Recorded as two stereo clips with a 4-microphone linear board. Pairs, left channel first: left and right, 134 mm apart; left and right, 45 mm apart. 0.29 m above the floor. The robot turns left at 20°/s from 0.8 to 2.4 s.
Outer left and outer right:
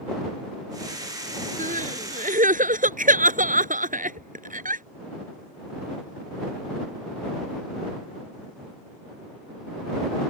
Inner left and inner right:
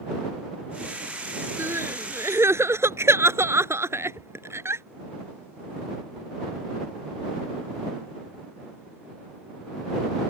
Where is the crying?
70° right (ahead or behind); by 4.8 s 75° right (ahead or behind).